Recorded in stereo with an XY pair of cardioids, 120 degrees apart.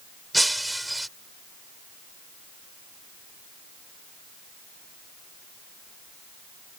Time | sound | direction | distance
0.3 | breaking glass | 5° right | ?